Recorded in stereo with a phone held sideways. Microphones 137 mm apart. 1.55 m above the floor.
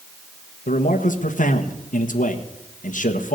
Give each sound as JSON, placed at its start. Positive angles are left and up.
{"t": 0.7, "sound": "a man speaking", "side_deg": 75, "distance_m": 1.5}